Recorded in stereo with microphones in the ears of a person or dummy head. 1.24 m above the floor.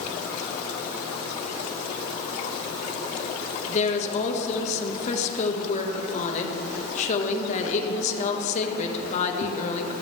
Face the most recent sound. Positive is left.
turn(degrees=40)  # may be behind; listen again after turning